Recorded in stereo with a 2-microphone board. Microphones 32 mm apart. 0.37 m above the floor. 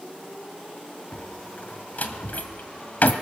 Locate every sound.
1.1 s a door slam: 55° left (ahead or behind), 1.7 m